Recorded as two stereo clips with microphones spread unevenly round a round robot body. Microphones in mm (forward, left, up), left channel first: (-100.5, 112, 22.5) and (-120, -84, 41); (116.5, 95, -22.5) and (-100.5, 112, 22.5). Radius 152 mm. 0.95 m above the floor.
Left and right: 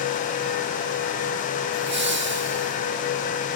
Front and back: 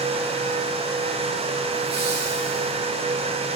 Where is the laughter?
120° right, 2 m.